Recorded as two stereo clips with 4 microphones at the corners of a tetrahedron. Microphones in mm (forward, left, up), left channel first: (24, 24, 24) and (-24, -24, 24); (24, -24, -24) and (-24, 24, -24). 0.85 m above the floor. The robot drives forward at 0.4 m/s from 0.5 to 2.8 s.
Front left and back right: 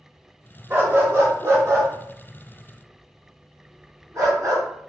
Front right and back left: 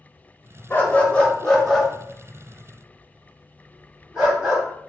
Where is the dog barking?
95° right, 0.7 m; by 4.6 s 150° right, 1.1 m.